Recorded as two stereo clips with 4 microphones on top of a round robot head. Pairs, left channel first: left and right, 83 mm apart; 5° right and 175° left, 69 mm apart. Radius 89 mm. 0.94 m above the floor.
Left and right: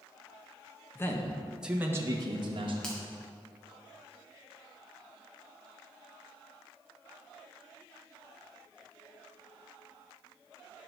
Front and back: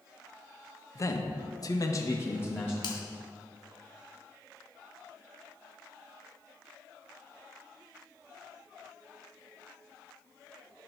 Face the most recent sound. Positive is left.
turn(degrees=5)